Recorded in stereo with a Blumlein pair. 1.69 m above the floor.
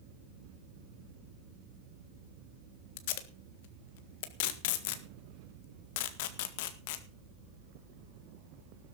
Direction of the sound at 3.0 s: 50° left.